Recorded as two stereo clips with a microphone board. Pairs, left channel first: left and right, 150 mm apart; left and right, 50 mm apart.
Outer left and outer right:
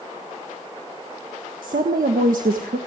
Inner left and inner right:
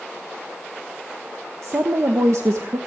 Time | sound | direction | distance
1.6 | a woman speaking | 80° right | 1.4 m